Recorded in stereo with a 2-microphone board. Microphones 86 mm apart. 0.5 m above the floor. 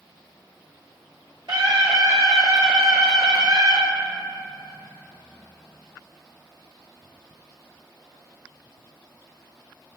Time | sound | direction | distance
1.5 | a scream | 55° right (ahead or behind) | 2 m